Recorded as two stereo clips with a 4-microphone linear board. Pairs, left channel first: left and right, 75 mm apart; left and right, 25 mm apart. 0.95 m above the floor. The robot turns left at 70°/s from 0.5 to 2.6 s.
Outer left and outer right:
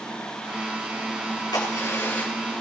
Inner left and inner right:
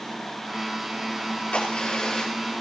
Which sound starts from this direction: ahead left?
A crack, at 1.5 s.